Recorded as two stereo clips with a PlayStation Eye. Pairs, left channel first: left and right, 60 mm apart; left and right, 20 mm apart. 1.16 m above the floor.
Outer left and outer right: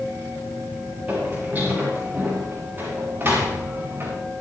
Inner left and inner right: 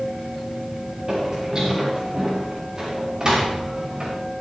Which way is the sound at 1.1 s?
25° right (ahead or behind).